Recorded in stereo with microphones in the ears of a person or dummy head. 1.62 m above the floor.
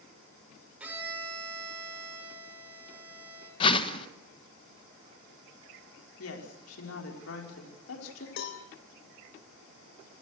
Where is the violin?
10° right (ahead or behind), 7.5 m.